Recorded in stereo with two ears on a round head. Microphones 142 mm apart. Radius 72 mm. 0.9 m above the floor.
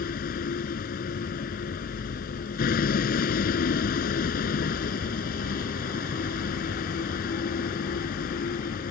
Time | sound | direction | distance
0.0 | a vehicle | 65° left (ahead or behind) | ?